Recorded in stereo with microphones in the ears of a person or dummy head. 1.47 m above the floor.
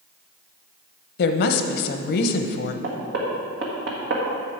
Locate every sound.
1.2 s a woman speaking: 60° left (ahead or behind), 0.8 m
2.8 s knocking: 65° right (ahead or behind), 1.7 m